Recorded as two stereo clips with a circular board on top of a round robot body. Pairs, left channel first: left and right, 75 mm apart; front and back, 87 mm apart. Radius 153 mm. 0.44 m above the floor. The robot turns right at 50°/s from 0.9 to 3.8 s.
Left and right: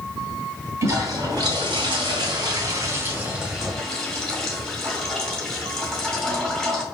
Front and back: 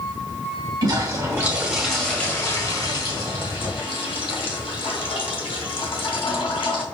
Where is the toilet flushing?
140° right, 1.7 m; by 6.8 s 5° left, 1.7 m.